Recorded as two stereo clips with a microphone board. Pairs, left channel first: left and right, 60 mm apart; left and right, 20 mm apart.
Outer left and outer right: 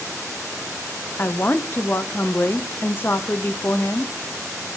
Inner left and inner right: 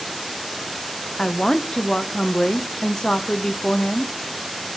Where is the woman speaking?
35° left (ahead or behind), 0.7 m.